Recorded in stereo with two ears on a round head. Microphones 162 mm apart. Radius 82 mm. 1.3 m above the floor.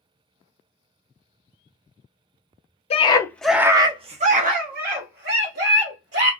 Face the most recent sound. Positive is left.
turn(degrees=-70)  # may be behind; listen again after turning